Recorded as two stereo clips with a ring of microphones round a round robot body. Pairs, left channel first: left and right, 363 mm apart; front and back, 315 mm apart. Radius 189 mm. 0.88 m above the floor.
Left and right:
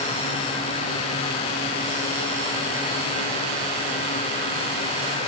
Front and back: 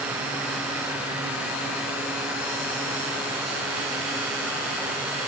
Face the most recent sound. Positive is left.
No sound to turn to.